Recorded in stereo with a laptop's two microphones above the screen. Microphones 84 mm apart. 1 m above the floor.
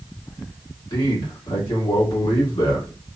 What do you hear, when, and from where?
0.9 s a man speaking: 75° left (ahead or behind), 1.5 m